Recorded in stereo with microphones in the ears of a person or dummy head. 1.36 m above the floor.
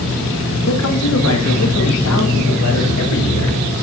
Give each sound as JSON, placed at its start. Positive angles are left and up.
{"t": 0.7, "sound": "a man speaking", "side_deg": 75, "distance_m": 1.6}